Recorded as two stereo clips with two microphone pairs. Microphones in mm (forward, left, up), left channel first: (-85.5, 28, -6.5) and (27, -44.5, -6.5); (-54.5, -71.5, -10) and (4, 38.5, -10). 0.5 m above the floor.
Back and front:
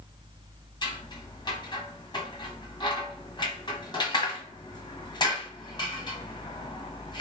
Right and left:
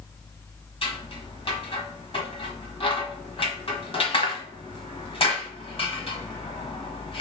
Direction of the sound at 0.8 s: 160° right.